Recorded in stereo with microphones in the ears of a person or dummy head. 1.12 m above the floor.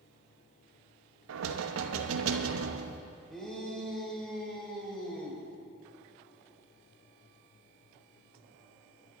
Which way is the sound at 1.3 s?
85° right.